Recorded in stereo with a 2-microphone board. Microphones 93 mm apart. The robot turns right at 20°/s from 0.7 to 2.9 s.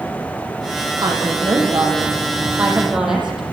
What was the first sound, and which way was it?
A woman speaking, 45° right.